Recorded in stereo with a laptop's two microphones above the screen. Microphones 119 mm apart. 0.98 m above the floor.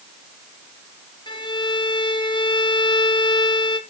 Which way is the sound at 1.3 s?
40° left (ahead or behind).